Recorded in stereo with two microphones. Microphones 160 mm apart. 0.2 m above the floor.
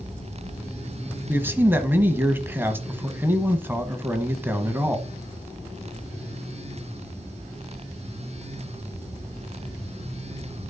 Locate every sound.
1.3 s a man speaking: 15° right (ahead or behind), 1.1 m